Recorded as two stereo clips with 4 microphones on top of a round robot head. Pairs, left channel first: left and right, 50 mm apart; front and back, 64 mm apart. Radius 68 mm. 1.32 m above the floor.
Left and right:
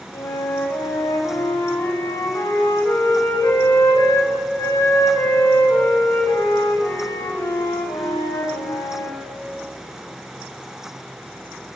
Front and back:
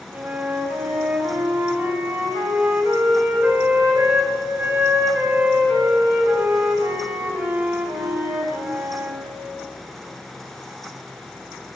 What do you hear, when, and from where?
0.1 s a flute: 120° left, 5 m